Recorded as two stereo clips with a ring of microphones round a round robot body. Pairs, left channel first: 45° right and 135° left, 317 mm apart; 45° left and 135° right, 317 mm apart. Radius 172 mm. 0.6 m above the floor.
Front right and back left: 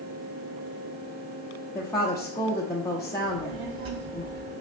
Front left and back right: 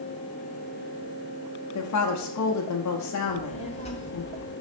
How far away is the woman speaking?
About 1.1 m.